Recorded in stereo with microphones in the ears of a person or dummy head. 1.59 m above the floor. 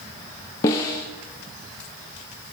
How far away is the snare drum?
About 0.5 m.